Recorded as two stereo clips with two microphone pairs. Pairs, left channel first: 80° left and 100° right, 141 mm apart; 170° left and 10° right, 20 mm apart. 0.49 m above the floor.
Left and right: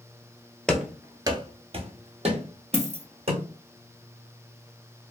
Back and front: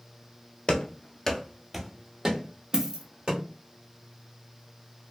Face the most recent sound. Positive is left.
turn(degrees=40)